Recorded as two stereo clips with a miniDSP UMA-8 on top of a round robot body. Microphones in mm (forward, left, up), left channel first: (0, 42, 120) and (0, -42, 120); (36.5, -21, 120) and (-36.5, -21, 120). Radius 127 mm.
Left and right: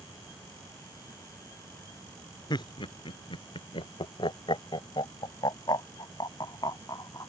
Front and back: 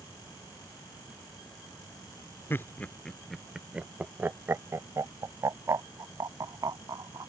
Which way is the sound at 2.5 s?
60° left.